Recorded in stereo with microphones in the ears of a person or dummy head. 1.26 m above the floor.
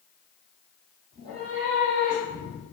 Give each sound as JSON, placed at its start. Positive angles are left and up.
{"t": 1.1, "sound": "a cat meowing", "side_deg": -35, "distance_m": 1.1}